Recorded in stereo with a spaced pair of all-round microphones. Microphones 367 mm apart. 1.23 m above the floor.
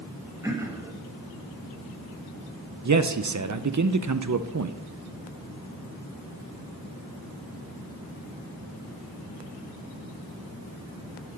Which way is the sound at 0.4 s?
10° right (ahead or behind).